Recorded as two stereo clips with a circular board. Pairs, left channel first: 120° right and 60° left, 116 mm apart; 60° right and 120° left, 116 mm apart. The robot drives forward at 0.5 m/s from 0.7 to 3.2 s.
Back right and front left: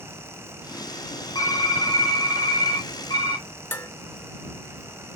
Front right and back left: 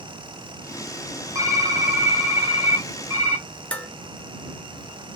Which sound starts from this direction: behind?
Typing on a keyboard, at 1.4 s.